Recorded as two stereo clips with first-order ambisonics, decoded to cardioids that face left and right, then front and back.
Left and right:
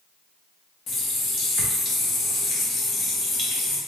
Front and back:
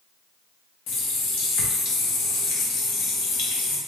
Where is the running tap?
35° left, 0.8 m.